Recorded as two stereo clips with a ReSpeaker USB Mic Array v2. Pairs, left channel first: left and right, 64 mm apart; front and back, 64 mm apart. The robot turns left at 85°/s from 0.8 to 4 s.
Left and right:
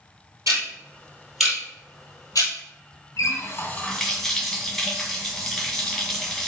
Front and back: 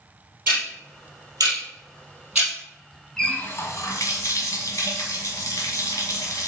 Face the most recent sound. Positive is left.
turn(degrees=0)